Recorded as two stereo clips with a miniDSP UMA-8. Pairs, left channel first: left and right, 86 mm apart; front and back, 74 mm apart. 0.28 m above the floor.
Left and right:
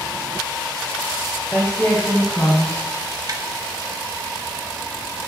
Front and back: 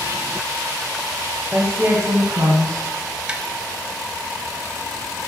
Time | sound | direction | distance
1.5 | a woman speaking | 160° left | 1.0 m
3.3 | tapping | 110° right | 0.7 m